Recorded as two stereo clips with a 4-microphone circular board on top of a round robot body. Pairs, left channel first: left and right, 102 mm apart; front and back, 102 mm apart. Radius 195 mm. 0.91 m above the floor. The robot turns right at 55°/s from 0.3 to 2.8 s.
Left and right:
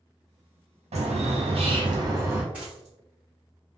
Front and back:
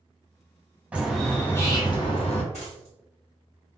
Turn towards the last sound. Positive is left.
turn(degrees=0)